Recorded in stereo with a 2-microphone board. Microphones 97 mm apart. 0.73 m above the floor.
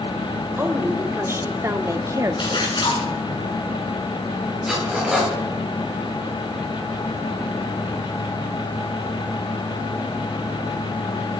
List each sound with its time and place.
0.6 s a woman speaking: 25° right (ahead or behind), 2.5 m; by 2.7 s 35° right (ahead or behind), 0.9 m
2.4 s a splash: 55° left (ahead or behind), 6 m
4.7 s cutlery clinking: 5° right (ahead or behind), 9 m